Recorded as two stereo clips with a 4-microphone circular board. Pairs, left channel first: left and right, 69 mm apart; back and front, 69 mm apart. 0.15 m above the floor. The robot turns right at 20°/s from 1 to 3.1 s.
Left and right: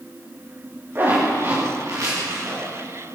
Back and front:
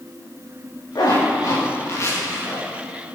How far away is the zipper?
About 9.5 m.